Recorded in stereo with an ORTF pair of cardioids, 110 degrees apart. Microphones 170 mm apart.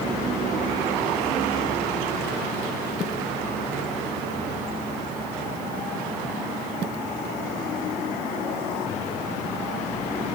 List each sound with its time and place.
Only background noise.